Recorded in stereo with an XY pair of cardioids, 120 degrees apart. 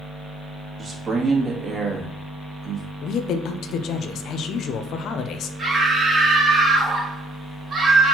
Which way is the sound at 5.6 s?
35° right.